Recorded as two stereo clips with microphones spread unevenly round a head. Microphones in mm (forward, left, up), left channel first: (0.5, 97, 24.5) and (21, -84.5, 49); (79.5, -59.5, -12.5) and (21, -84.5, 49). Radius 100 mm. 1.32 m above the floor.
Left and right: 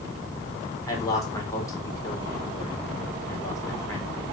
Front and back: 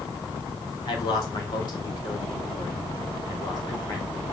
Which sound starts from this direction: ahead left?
A man speaking, at 0.9 s.